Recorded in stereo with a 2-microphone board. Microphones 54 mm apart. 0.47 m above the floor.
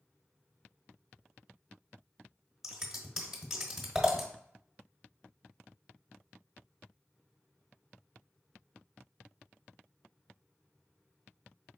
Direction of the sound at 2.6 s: 5° right (ahead or behind).